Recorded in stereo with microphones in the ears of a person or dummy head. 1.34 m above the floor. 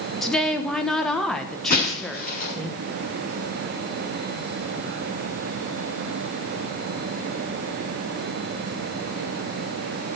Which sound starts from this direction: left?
Breaking glass, at 1.7 s.